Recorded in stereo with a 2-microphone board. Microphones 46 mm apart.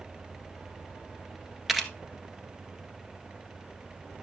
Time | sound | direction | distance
1.7 | a camera shutter | 5° right (ahead or behind) | 1.4 m